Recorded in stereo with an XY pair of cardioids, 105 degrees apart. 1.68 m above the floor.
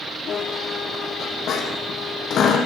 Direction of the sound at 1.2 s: 60° left.